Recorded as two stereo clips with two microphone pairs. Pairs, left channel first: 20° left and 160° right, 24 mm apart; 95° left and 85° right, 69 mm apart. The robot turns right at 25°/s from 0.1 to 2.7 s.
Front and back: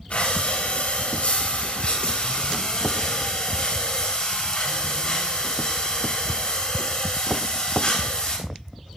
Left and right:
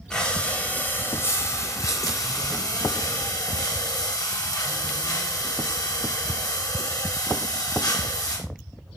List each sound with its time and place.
0.1 s breathing: 15° left, 4 m; by 8.4 s 80° left, 4 m